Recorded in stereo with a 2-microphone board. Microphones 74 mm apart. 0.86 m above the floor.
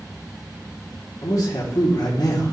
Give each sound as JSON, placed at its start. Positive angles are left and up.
{"t": 1.2, "sound": "a man speaking", "side_deg": 55, "distance_m": 2.0}